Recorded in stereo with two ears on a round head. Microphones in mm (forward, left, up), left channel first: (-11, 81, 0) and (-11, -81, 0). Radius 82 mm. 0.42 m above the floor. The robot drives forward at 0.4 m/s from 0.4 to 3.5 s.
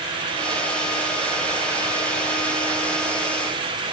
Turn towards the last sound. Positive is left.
No sound to turn to.